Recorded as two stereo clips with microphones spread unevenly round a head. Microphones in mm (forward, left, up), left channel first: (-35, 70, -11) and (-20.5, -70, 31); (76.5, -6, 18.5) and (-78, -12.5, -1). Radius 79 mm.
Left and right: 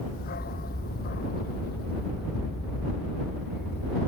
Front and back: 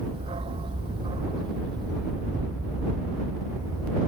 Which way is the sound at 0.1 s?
120° left.